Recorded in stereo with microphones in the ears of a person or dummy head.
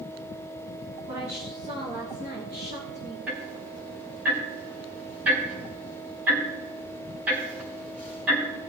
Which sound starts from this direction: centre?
Ticking, at 3.3 s.